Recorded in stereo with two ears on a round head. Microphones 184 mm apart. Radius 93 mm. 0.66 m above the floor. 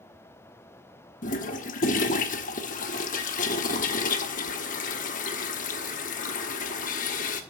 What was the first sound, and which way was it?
A toilet flushing, 40° left (ahead or behind).